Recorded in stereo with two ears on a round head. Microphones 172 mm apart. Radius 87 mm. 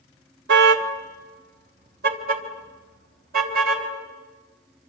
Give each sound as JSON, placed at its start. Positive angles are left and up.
{"t": 0.5, "sound": "a car horn", "side_deg": -65, "distance_m": 2.0}